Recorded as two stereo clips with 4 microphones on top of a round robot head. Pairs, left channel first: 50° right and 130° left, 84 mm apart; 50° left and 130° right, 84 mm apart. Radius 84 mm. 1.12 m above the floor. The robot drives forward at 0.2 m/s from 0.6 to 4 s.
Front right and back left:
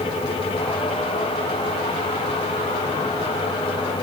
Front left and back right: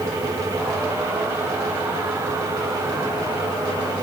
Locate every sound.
Only background noise.